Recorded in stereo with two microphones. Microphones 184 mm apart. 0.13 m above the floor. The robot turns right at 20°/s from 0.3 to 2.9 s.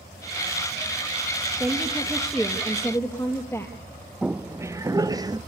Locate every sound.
1.6 s a woman speaking: 10° right (ahead or behind), 3 m; by 3.8 s 15° left (ahead or behind), 3 m
4.2 s footsteps: 5° right (ahead or behind), 0.5 m; by 5.4 s 20° right (ahead or behind), 1.5 m